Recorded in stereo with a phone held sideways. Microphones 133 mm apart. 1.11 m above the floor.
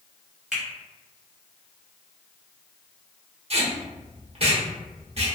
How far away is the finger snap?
About 1.3 m.